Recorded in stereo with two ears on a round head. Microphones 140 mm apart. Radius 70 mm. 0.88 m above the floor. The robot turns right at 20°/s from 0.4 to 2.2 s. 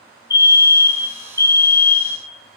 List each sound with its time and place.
0.3 s a fire alarm: 25° left (ahead or behind), 1.3 m; by 2.2 s 10° left (ahead or behind), 1.3 m